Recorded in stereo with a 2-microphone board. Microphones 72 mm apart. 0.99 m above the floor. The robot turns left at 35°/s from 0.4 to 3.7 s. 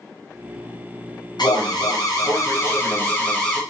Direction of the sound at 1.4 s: 80° left.